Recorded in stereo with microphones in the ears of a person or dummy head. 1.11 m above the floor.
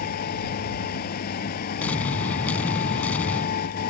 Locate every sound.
0.0 s a machine running: 50° left (ahead or behind)
1.8 s an explosion: 10° left (ahead or behind)